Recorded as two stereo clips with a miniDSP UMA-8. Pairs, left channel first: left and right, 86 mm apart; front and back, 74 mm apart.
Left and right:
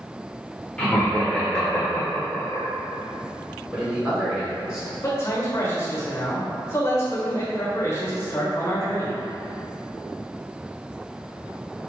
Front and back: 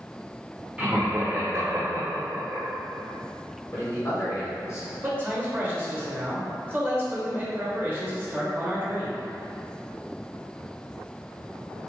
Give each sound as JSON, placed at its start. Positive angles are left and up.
{"t": 0.8, "sound": "laughter", "azimuth_deg": 145, "distance_m": 1.1}
{"t": 3.7, "sound": "a man speaking", "azimuth_deg": -25, "distance_m": 2.0}
{"t": 5.0, "sound": "a man speaking", "azimuth_deg": 130, "distance_m": 1.1}